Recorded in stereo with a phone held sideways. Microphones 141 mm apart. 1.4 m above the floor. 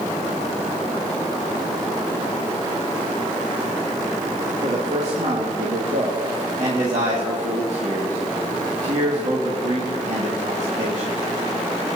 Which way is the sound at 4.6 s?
55° right (ahead or behind).